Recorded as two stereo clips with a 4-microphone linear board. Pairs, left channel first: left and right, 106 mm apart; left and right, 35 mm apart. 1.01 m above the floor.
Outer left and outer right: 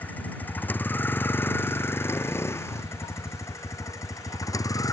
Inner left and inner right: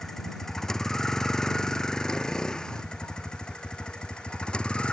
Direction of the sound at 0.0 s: 15° left (ahead or behind).